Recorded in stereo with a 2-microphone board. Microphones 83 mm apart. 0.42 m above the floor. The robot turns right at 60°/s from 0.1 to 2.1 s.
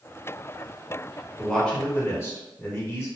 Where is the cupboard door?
No cupboard door in this recording.